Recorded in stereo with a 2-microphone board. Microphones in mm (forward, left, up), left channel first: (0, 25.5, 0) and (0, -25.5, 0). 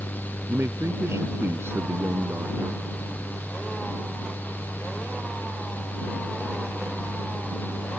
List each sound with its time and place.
0.5 s a man speaking: 55° right (ahead or behind)